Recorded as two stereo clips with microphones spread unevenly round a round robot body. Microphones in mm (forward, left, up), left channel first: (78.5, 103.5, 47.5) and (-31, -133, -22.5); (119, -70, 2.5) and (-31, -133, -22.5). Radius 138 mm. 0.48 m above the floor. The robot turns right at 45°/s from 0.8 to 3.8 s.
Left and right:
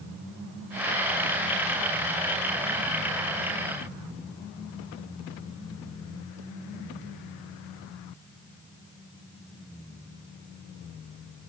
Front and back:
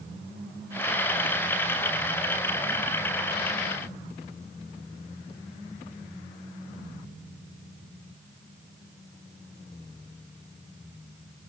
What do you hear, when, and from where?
Only background noise.